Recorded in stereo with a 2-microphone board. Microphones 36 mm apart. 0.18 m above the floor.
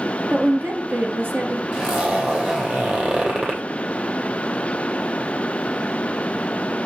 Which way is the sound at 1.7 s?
40° right (ahead or behind).